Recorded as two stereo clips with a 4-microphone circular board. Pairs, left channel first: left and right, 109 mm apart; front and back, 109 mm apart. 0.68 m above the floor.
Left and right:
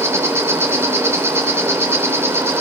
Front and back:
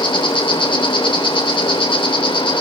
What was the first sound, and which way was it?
An insect, 25° right.